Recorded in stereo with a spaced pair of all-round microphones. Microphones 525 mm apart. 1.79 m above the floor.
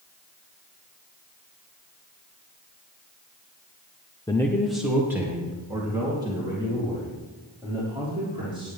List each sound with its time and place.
4.3 s a man speaking: 10° left (ahead or behind), 0.7 m; by 8.7 s 10° right (ahead or behind), 6 m